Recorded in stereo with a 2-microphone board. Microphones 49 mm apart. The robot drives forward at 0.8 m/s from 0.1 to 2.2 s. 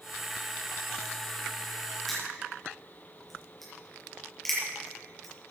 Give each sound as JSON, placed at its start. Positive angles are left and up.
{"t": 2.1, "sound": "crushing", "side_deg": 5, "distance_m": 6.0}